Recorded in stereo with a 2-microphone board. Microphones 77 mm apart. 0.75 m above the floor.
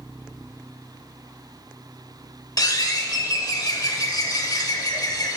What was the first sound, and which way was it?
A bird, 55° left (ahead or behind).